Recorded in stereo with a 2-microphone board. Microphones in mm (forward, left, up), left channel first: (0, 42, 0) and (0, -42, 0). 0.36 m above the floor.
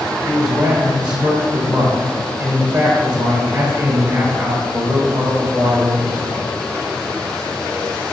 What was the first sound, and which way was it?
A man speaking, 25° right (ahead or behind).